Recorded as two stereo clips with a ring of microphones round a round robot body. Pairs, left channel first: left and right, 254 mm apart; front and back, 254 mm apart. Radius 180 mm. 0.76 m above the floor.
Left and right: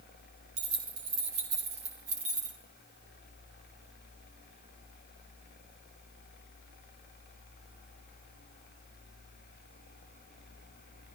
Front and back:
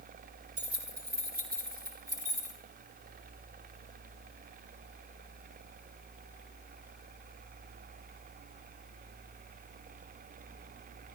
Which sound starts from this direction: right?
Keys jangling, at 0.6 s.